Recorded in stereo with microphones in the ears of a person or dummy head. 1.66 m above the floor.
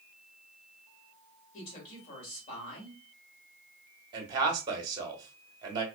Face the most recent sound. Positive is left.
turn(degrees=-25)  # may be behind; listen again after turning